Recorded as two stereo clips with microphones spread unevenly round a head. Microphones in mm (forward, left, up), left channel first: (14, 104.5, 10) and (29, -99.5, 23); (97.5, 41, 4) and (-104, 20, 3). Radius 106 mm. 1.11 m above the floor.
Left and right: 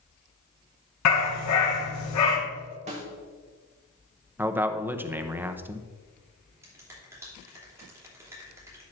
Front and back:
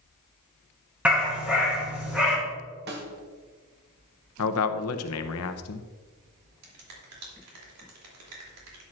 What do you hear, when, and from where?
1.1 s a dog barking: 100° left, 3.5 m
2.9 s a snare drum: 140° right, 1.4 m
4.4 s a man speaking: 5° right, 0.9 m
6.6 s a finger snap: 165° right, 3 m